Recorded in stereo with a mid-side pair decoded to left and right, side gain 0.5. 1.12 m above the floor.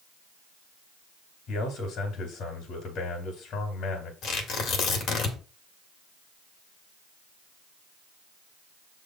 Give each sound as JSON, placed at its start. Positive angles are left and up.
{"t": 1.5, "sound": "a man speaking", "azimuth_deg": 65, "distance_m": 2.5}
{"t": 4.2, "sound": "tearing paper", "azimuth_deg": 65, "distance_m": 2.0}